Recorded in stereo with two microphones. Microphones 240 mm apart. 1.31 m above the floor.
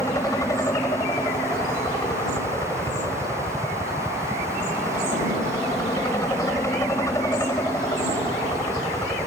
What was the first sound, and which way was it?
A helicopter, 15° left (ahead or behind).